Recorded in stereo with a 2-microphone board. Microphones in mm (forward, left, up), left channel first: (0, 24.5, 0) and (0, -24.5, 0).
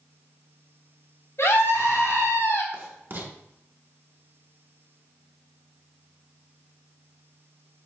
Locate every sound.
1.4 s a scream: 60° left (ahead or behind), 3.5 m
2.7 s writing: 50° right (ahead or behind), 1.7 m